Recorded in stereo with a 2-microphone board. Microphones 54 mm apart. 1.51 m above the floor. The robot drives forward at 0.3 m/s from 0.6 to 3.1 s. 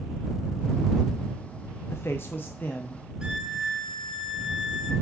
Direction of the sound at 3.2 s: 15° right (ahead or behind).